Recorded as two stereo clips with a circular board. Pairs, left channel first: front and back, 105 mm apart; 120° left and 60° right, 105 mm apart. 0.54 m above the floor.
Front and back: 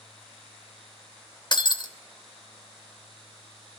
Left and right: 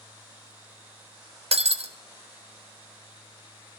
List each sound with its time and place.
1.5 s breaking glass: 45° right, 0.8 m